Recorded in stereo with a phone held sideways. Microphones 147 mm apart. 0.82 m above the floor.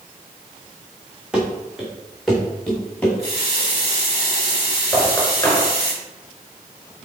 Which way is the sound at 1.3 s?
5° right (ahead or behind).